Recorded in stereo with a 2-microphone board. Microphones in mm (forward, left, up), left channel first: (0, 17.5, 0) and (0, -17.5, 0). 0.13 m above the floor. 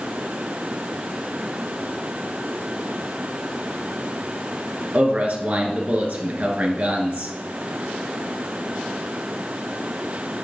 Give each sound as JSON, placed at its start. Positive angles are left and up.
{"t": 4.9, "sound": "a man speaking", "side_deg": -45, "distance_m": 2.0}